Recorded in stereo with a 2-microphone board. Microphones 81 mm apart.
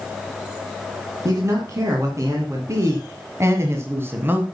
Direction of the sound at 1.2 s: 40° right (ahead or behind).